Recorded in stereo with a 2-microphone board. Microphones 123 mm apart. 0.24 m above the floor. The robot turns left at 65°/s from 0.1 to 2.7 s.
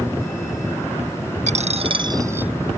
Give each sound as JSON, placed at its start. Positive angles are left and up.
{"t": 1.5, "sound": "a dropped coin", "azimuth_deg": -100}